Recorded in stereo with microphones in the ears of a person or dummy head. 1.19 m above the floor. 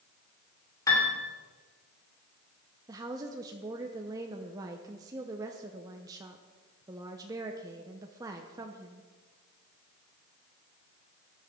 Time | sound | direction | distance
0.9 | a piano | 20° left (ahead or behind) | 3 m
2.9 | a woman speaking | 20° right (ahead or behind) | 0.7 m